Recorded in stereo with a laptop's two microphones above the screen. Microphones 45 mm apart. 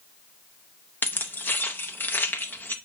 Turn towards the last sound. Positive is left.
turn(degrees=45)  # may be behind; listen again after turning